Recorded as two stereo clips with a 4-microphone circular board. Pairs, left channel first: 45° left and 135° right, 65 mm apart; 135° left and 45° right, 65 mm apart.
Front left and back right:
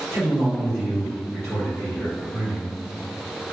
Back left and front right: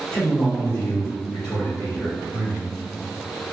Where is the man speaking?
105° left, 1.0 m; by 2.7 s 115° left, 2.5 m.